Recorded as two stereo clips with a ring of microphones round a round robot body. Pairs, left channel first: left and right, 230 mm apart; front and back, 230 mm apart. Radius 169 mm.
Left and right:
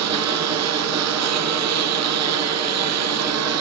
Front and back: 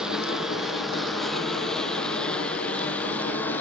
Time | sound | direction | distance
0.0 | a lawn mower | 90° right | ?